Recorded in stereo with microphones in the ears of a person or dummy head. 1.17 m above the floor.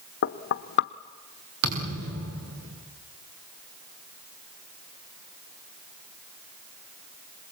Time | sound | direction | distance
0.2 | knocking | 60° left (ahead or behind) | 0.9 m
1.6 | a thud | 70° right (ahead or behind) | 7 m